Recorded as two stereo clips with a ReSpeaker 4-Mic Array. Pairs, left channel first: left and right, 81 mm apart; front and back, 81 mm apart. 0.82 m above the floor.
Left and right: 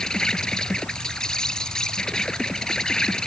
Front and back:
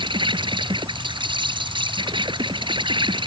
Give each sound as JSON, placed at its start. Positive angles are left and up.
{"t": 0.0, "sound": "an insect", "azimuth_deg": 170}